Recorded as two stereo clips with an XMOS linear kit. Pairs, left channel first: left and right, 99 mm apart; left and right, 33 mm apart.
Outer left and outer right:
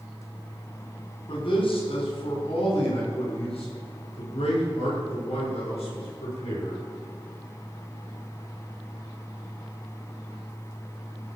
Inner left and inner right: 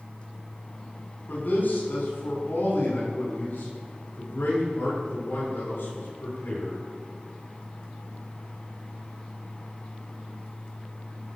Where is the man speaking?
65° left (ahead or behind), 4.5 m; by 6.8 s 85° left, 9 m.